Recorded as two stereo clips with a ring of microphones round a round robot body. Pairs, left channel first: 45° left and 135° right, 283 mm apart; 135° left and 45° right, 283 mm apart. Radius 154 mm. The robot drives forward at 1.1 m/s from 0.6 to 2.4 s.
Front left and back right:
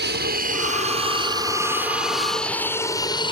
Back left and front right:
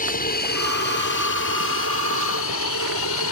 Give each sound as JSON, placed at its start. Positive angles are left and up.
{"t": 0.0, "sound": "an aircraft", "azimuth_deg": -175}